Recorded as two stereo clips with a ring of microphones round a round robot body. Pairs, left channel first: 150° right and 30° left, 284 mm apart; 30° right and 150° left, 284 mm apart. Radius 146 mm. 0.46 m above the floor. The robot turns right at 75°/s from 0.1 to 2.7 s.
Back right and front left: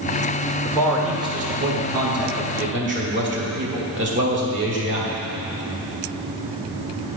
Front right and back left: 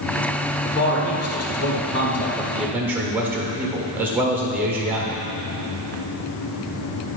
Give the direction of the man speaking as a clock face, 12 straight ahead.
3 o'clock.